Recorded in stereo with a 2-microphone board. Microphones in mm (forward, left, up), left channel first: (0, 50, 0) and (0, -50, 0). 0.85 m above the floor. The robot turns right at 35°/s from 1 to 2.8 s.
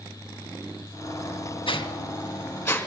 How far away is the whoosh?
About 1.9 m.